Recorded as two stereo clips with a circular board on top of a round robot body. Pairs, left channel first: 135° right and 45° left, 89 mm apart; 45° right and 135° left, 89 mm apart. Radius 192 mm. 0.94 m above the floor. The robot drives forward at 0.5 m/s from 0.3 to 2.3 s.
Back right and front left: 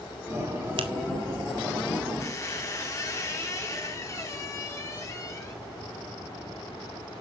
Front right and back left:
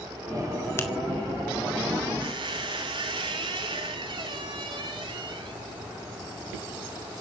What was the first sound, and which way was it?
A finger snap, 20° left.